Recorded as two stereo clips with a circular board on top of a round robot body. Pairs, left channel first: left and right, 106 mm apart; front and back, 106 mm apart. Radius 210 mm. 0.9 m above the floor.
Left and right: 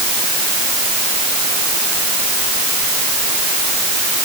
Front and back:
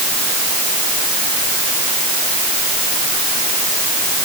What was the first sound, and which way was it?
Only background noise.